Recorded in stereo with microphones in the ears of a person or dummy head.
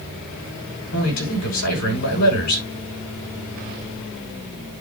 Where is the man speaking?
90° left, 9 m.